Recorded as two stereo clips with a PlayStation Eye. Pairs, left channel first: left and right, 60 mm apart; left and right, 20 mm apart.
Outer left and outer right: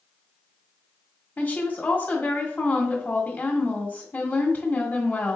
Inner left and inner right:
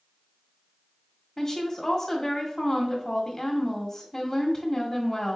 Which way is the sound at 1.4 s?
30° left (ahead or behind).